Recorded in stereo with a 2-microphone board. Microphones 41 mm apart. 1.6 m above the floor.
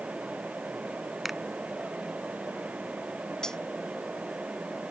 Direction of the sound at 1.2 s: 5° right (ahead or behind).